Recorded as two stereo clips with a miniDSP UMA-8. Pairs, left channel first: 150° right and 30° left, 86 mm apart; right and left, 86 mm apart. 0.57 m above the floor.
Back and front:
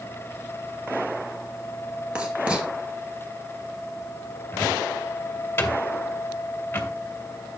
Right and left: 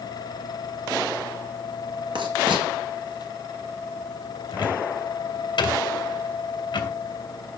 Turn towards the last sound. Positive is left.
turn(degrees=-90)